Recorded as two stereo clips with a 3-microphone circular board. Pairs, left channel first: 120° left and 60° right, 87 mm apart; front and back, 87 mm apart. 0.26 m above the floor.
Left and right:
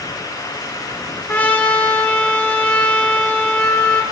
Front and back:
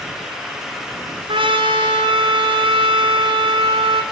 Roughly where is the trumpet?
Behind.